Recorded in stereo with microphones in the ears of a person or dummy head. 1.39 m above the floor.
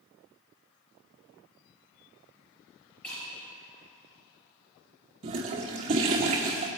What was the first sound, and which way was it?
Breaking glass, 5° left (ahead or behind).